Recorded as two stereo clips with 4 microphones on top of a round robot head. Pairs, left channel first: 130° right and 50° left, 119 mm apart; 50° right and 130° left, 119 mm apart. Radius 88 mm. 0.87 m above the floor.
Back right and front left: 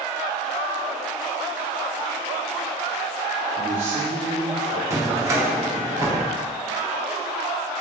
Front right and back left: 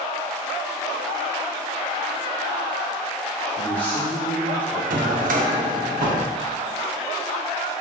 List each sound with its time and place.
3.6 s a man speaking: 25° left, 3 m
4.9 s a drawer: 115° left, 0.8 m